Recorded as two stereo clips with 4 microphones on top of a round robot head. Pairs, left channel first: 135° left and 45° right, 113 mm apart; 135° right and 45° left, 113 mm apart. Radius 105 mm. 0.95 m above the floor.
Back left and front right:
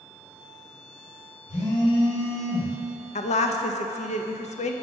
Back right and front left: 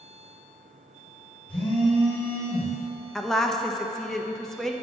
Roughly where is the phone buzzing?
Behind left.